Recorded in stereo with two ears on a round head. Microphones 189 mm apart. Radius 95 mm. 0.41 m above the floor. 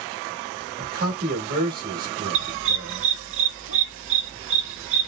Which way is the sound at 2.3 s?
65° right (ahead or behind).